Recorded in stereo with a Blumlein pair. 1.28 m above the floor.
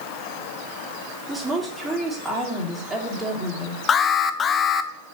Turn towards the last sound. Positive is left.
turn(degrees=20)